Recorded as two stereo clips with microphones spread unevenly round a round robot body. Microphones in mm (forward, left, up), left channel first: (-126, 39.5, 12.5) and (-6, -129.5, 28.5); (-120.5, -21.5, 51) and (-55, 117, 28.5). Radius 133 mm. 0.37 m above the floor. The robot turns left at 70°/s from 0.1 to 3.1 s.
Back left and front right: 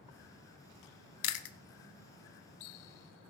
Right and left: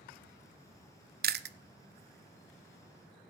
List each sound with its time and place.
1.2 s chewing: 100° left, 0.6 m; by 1.6 s 75° left, 0.6 m